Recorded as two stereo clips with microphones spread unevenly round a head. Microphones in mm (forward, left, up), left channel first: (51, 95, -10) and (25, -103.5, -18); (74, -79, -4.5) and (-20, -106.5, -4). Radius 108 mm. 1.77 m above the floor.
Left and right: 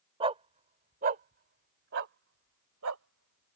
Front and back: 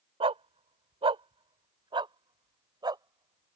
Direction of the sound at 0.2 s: 165° right.